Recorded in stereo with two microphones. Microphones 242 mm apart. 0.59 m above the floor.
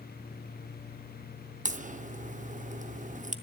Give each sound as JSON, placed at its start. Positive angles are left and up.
{"t": 1.6, "sound": "a crack", "side_deg": -30, "distance_m": 0.7}